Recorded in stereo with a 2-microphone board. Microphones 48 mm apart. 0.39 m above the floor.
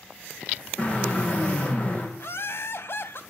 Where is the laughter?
60° left (ahead or behind), 2 m.